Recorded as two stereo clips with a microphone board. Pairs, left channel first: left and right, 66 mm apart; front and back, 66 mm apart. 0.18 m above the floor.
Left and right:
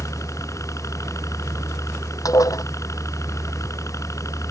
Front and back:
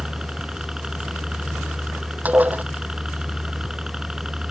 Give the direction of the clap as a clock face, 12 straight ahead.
No clap in this recording.